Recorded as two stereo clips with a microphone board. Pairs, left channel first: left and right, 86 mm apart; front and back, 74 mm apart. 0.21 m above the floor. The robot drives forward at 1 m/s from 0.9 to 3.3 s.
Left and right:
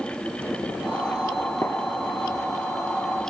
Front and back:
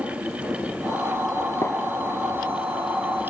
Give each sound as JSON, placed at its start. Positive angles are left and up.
{"t": 1.6, "sound": "a gunshot", "azimuth_deg": 40, "distance_m": 0.8}